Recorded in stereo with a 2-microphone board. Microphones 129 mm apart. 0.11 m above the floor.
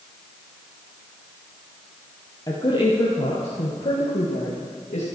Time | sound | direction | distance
2.5 | a woman speaking | 35° left (ahead or behind) | 2.5 m